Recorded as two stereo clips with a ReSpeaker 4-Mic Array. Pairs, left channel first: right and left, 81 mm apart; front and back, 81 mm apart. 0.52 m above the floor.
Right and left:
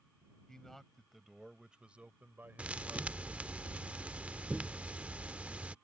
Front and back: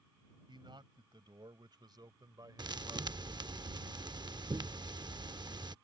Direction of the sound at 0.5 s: 175° right.